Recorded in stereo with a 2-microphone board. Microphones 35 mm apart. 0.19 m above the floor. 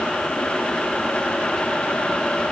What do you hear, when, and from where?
Only background noise.